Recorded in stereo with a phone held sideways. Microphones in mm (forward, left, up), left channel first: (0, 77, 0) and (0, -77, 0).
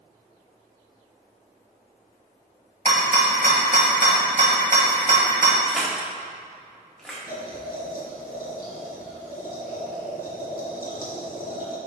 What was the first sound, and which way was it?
A rattle, 65° right (ahead or behind).